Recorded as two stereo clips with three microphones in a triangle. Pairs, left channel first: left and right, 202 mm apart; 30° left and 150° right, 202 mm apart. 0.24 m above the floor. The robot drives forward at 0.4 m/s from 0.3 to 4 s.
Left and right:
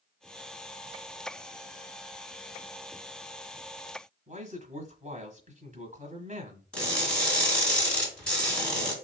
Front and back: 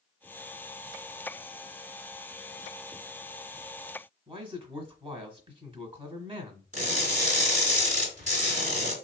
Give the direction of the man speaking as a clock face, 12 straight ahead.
4 o'clock.